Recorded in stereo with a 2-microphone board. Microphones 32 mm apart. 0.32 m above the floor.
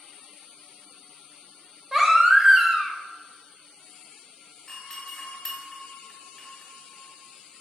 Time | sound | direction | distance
1.9 | a baby crying | 10° right (ahead or behind) | 0.6 m
4.7 | a doorbell | 15° left (ahead or behind) | 1.6 m